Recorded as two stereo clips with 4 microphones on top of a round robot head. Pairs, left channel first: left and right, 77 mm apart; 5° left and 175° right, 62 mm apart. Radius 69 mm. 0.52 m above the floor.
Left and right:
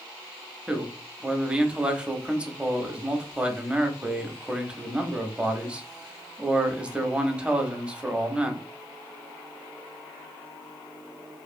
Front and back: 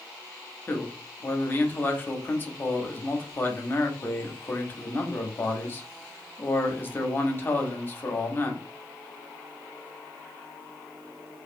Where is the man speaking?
20° right, 0.7 m.